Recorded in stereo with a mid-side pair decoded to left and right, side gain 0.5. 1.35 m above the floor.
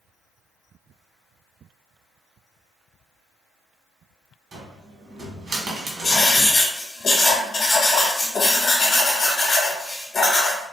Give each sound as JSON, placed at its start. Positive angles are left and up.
{"t": 4.5, "sound": "a cupboard door", "azimuth_deg": -50, "distance_m": 1.5}
{"t": 6.0, "sound": "writing", "azimuth_deg": 40, "distance_m": 1.2}